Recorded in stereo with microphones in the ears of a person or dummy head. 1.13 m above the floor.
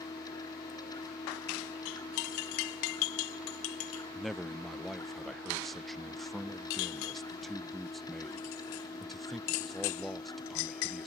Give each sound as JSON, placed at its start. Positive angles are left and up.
{"t": 0.0, "sound": "a machine running", "side_deg": 15}
{"t": 4.2, "sound": "a man speaking", "side_deg": -5}